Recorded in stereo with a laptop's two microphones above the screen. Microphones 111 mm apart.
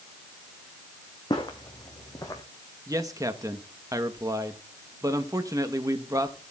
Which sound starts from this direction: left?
Footsteps, at 1.3 s.